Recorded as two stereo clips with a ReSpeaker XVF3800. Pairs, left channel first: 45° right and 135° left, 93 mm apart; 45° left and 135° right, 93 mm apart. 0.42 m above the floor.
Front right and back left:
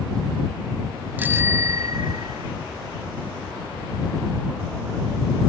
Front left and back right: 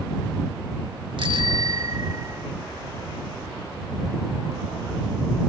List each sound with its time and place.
1.2 s a bicycle bell: 155° right; by 2.5 s 165° left